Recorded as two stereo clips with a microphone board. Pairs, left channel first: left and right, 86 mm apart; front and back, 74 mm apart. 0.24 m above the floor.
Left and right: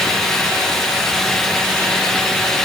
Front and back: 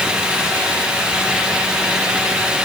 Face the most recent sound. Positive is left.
No sound to turn to.